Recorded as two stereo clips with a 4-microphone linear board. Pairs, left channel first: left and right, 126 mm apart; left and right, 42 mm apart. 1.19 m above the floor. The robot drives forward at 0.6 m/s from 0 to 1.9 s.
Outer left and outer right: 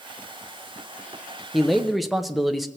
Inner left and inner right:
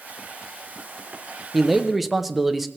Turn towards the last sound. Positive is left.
turn(degrees=0)  # may be behind; listen again after turning